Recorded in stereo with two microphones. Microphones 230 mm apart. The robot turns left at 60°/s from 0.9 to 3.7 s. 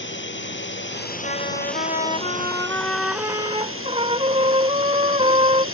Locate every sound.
0.0 s a drone: 55° left; by 5.8 s 115° right
1.2 s a trumpet: 105° left; by 5.7 s 40° right